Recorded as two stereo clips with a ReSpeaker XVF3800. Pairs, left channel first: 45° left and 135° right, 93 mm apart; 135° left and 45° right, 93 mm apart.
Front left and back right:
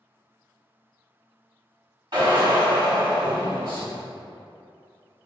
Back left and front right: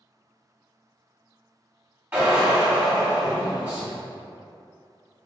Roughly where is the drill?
Right.